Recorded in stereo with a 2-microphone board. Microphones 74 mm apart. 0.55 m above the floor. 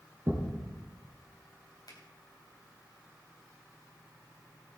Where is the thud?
35° right (ahead or behind), 3 m.